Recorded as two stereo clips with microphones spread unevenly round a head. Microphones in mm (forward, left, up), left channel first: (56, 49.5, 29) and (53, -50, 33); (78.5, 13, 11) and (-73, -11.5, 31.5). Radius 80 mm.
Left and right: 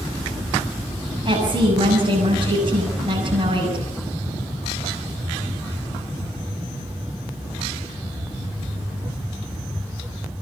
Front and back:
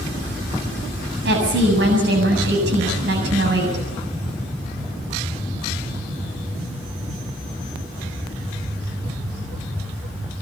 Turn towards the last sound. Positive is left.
turn(degrees=-150)